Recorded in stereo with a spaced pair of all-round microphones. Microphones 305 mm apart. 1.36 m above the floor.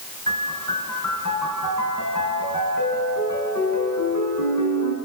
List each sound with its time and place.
0.3 s a piano: 75° left (ahead or behind), 6 m